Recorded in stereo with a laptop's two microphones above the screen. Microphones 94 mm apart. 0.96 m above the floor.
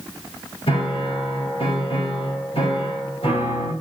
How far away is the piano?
About 5 m.